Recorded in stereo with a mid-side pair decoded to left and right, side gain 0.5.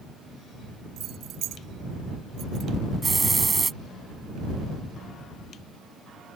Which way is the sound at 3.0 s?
25° right.